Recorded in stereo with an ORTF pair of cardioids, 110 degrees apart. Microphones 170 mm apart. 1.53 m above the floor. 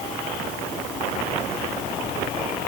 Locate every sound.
Only background noise.